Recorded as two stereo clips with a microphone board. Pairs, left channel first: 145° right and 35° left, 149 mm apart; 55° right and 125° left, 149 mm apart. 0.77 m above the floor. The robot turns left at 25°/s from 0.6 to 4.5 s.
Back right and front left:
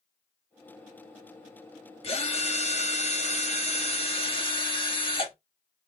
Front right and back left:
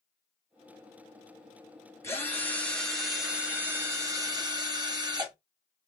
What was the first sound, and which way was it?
A drill, 120° right.